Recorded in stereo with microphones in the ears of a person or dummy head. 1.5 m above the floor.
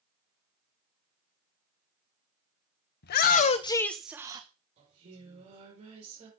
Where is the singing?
35° right (ahead or behind), 6 m.